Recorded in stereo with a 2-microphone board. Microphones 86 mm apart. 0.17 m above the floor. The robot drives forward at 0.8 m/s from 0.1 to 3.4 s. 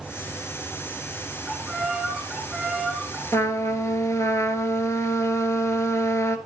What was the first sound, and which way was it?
A violin, centre (ahead or behind).